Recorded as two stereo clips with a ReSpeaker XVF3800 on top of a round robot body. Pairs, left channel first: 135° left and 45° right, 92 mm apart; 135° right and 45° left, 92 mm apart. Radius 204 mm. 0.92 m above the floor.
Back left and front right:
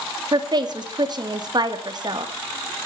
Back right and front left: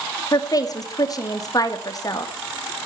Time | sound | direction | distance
0.3 | a woman speaking | 90° right | 2.5 m